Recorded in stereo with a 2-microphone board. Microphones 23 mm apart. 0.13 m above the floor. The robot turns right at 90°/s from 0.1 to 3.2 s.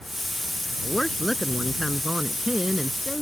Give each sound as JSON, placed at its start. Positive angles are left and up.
{"t": 0.8, "sound": "a woman speaking", "azimuth_deg": 110}